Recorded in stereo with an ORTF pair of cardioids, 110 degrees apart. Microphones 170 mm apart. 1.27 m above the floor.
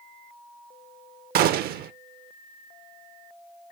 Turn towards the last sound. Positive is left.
turn(degrees=-65)